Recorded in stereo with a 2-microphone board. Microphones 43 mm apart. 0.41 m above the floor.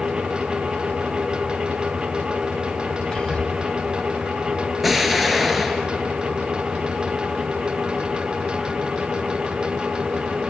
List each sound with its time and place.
3.1 s whispering: 15° left (ahead or behind), 3 m
4.8 s an explosion: centre (ahead or behind), 1.6 m